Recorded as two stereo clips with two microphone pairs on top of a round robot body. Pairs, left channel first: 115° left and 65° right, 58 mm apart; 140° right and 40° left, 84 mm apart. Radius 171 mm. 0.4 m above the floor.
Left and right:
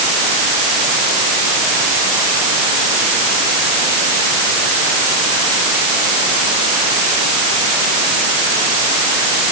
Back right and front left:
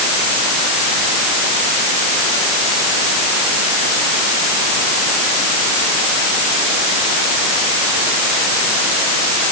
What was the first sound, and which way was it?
Only background noise.